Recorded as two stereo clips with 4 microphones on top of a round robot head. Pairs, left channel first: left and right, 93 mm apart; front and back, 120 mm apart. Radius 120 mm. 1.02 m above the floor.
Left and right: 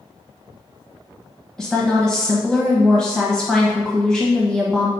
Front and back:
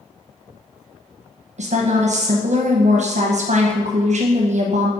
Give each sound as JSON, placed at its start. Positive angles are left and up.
{"t": 1.6, "sound": "a woman speaking", "azimuth_deg": 175, "distance_m": 1.1}